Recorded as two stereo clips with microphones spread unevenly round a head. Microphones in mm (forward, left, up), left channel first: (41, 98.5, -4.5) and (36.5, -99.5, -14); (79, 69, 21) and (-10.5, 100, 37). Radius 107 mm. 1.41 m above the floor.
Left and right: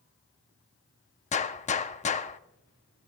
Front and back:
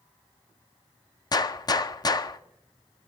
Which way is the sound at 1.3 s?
35° left.